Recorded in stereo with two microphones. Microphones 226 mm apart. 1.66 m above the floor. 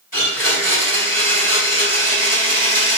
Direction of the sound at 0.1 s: 40° left (ahead or behind).